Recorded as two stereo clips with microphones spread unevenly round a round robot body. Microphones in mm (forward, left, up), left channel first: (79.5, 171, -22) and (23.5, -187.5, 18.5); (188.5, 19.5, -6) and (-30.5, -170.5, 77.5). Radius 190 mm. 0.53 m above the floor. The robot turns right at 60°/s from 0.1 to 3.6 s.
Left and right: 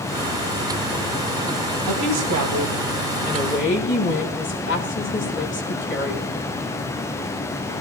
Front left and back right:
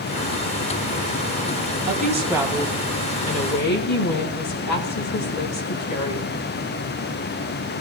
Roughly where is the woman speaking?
Right.